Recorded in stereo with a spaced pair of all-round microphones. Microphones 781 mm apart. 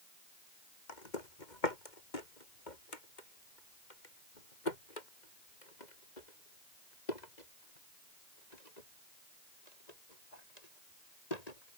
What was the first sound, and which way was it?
Footsteps, 65° left (ahead or behind).